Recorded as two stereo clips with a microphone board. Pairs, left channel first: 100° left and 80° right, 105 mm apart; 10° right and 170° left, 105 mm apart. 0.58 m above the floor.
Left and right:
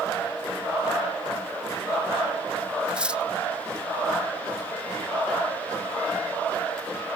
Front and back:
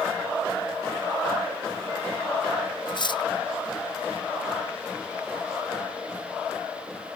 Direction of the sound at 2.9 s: 5° right.